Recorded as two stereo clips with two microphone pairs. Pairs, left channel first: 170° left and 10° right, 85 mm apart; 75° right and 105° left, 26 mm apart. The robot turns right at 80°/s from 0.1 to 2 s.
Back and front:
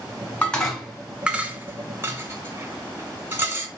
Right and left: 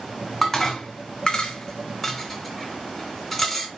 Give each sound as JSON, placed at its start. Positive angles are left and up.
{"t": 0.4, "sound": "dishes clattering", "azimuth_deg": -135, "distance_m": 0.9}